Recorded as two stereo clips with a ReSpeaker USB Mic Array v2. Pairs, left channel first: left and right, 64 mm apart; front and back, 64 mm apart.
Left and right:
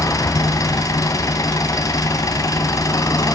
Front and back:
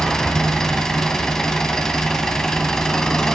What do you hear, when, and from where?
0.0 s an engine running: 80° left, 2.5 m